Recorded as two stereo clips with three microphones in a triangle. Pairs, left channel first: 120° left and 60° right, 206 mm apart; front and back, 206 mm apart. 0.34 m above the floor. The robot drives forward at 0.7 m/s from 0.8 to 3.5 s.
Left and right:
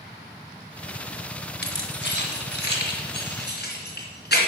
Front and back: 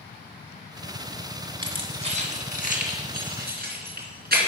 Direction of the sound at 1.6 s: 120° left.